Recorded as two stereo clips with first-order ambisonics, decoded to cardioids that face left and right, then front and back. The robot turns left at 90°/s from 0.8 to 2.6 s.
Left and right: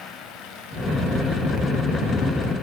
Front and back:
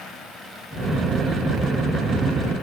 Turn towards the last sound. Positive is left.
No sound to turn to.